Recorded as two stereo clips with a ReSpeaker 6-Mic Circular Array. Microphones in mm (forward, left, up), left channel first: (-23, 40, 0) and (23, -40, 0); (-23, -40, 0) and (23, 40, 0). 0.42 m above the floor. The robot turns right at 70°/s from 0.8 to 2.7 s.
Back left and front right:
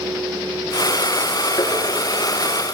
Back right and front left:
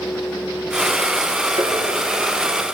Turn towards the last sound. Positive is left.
turn(degrees=150)